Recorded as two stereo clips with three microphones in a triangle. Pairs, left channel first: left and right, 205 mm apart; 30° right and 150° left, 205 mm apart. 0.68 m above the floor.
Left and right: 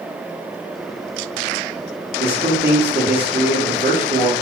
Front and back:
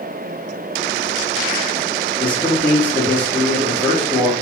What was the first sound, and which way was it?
A man speaking, 110° right.